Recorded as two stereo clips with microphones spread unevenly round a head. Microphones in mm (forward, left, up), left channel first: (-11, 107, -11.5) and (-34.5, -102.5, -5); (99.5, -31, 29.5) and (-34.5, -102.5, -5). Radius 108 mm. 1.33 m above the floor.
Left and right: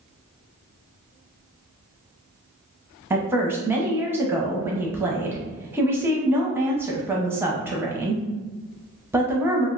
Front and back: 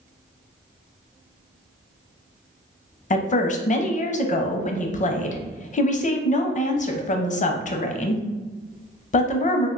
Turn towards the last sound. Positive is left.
turn(degrees=-15)